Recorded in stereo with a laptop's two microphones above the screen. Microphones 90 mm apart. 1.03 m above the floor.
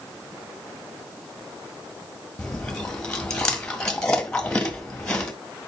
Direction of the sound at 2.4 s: 5° left (ahead or behind).